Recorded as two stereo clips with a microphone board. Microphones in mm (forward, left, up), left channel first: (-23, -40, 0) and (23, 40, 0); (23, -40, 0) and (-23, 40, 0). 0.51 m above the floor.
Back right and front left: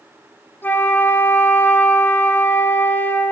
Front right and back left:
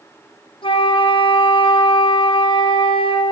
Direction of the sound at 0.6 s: 55° right.